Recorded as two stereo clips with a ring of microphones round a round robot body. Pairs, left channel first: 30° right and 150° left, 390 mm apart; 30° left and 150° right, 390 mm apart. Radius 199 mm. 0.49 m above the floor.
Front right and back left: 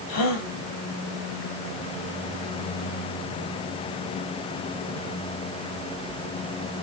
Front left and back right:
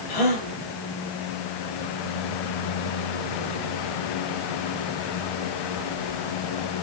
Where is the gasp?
15° left, 4 m.